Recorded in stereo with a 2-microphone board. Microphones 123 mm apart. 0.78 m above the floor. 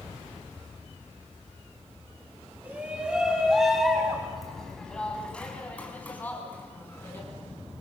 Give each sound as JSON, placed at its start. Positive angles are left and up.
{"t": 2.6, "sound": "a shout", "side_deg": -10, "distance_m": 5.5}